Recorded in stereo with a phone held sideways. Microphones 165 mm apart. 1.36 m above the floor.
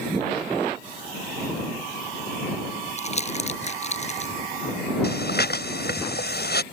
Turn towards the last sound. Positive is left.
turn(degrees=80)